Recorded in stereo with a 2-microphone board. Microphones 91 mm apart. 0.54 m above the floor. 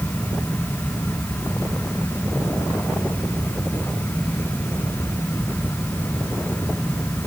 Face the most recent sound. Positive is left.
No sound to turn to.